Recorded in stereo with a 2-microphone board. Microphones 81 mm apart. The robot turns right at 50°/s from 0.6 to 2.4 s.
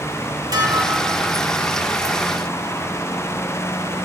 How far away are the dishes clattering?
About 3 m.